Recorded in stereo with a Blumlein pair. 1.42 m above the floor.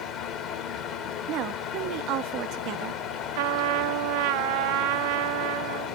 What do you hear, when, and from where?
0.0 s a fan: 30° left, 1.8 m
1.3 s a woman speaking: 35° right, 0.7 m
3.4 s a trumpet: 45° right, 0.5 m